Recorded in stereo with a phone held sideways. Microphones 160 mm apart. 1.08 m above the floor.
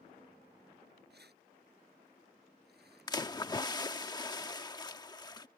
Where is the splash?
25° left (ahead or behind).